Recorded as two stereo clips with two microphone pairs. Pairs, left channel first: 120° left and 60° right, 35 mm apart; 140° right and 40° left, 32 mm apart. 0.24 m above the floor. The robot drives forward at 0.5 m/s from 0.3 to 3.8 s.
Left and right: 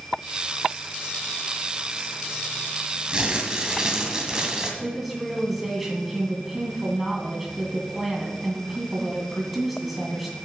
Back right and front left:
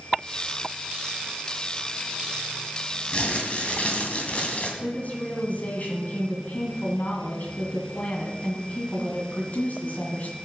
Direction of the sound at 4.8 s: 140° right.